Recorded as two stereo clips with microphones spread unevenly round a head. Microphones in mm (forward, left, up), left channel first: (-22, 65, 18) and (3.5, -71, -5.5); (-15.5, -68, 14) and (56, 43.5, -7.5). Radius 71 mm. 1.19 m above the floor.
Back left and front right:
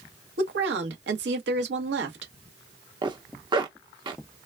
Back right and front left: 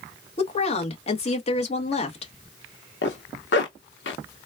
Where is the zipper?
135° right, 1.0 m.